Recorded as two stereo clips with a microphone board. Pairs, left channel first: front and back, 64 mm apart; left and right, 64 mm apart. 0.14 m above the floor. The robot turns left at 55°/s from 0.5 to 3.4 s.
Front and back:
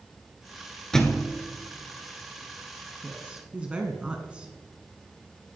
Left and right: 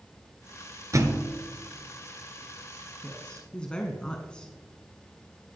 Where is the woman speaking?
160° left, 1.1 m; by 4.5 s 140° left, 1.1 m.